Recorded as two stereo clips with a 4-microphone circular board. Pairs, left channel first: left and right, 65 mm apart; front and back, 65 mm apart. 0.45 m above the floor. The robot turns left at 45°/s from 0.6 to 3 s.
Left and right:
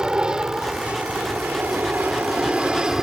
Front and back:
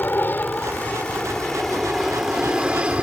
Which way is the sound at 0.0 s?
25° right.